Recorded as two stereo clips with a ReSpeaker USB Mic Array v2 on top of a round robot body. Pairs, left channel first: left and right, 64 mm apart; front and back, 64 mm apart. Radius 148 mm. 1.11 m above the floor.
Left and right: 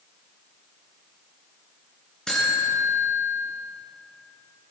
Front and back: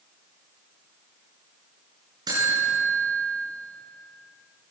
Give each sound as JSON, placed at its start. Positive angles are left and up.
{"t": 2.3, "sound": "a buzzer", "azimuth_deg": 170, "distance_m": 9.0}